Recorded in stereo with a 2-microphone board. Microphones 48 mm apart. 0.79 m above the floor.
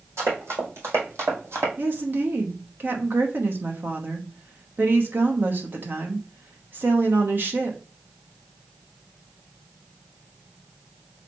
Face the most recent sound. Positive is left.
turn(degrees=-45)  # may be behind; listen again after turning